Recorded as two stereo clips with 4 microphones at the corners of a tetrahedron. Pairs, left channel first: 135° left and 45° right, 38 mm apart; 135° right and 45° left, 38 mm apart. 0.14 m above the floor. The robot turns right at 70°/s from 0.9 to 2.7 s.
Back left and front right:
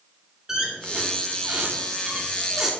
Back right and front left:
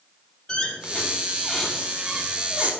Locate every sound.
0.5 s a squeak: 110° right, 1.1 m; by 2.7 s 20° left, 1.1 m